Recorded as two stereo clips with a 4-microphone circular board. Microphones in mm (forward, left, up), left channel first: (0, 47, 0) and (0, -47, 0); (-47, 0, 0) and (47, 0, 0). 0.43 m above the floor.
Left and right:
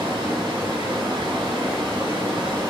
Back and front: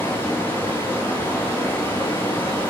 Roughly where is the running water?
Behind right.